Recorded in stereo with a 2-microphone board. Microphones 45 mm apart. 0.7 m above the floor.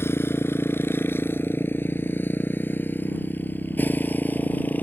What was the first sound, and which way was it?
A motorcycle, 70° left (ahead or behind).